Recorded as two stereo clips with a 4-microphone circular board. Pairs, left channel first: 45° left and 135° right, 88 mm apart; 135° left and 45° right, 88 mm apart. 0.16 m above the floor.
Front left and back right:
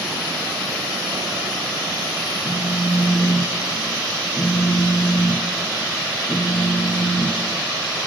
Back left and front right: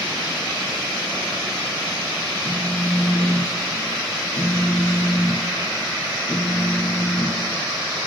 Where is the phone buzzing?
80° left, 0.7 m.